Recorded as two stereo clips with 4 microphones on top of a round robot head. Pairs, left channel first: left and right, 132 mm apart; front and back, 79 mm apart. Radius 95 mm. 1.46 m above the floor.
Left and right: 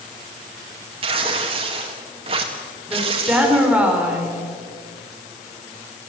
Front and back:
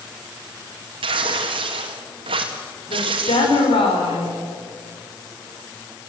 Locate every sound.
1.0 s tearing paper: 145° right, 1.8 m
2.9 s a woman speaking: 10° right, 5.5 m